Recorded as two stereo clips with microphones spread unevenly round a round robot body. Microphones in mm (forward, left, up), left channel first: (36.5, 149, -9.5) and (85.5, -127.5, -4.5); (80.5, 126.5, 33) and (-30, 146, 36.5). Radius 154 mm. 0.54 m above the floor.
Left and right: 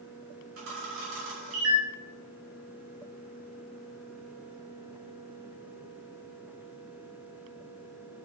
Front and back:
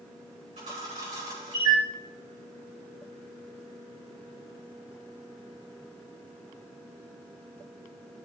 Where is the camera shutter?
130° right, 6 m.